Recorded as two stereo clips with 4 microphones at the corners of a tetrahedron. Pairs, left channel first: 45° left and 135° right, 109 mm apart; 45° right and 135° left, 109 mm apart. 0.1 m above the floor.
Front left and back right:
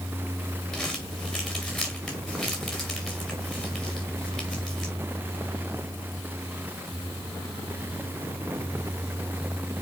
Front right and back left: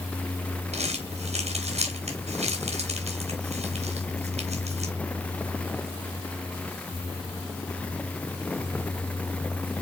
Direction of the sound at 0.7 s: 135° left.